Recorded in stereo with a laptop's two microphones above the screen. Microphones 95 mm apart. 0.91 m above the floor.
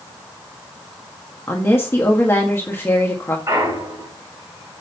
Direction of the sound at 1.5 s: 25° left (ahead or behind).